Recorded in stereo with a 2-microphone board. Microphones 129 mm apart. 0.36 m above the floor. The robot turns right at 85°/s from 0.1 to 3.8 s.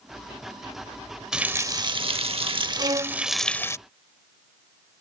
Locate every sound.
1.3 s a running tap: 175° right; by 3.8 s 35° left
2.8 s a violin: 55° right; by 3.2 s 15° right